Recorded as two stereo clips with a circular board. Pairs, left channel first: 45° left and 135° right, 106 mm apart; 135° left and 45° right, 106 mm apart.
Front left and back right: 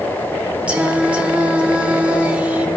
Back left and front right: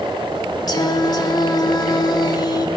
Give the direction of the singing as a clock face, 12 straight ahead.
7 o'clock.